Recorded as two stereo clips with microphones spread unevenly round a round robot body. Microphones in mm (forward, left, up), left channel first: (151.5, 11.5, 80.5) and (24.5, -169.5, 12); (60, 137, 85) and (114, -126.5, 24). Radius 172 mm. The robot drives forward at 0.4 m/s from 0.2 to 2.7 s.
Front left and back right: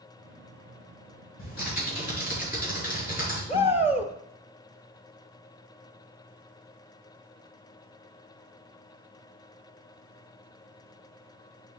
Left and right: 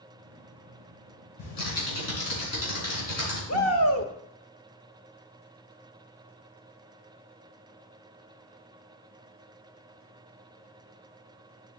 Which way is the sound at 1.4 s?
115° left.